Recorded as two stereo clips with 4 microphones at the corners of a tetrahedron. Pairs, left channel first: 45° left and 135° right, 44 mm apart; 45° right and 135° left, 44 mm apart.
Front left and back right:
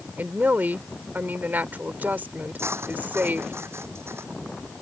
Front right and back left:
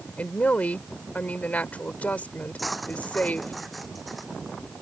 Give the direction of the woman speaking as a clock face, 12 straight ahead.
3 o'clock.